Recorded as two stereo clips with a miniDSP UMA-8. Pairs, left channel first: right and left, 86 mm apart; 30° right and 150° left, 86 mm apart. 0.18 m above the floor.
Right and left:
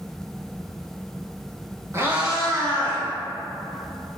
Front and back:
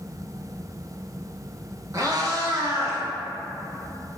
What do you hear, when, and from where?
1.9 s a cat meowing: 130° left, 0.5 m; by 3.0 s 155° right, 1.0 m